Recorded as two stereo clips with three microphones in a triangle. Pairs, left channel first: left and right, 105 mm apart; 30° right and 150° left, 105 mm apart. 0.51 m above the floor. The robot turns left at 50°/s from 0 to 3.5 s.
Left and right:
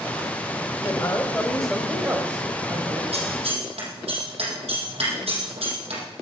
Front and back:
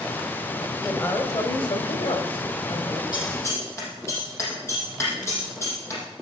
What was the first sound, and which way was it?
A woman speaking, 40° left.